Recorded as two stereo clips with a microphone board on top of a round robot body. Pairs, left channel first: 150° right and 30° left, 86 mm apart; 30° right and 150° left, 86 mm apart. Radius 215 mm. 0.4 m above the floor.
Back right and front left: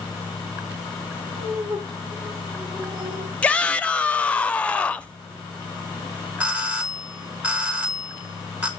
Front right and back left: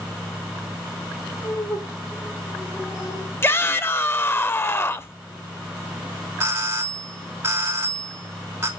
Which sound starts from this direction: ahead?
Laughter, at 1.3 s.